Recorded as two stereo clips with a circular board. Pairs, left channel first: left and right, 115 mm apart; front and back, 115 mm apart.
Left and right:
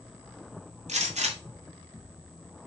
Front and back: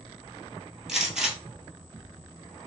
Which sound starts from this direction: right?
A gunshot, at 0.9 s.